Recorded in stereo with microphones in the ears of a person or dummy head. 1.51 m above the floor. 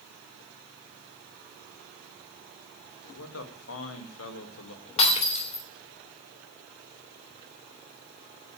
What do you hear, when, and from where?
3.0 s a man speaking: 85° left, 2 m
5.0 s breaking glass: 35° left (ahead or behind), 2.5 m